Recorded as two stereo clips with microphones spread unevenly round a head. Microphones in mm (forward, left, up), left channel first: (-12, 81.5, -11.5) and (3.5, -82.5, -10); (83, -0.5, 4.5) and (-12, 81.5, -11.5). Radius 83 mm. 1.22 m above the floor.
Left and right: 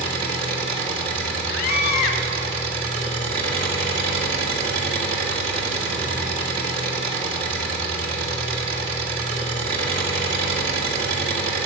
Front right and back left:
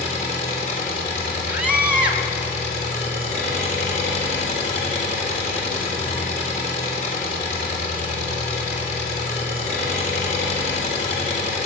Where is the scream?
60° left, 1.9 m.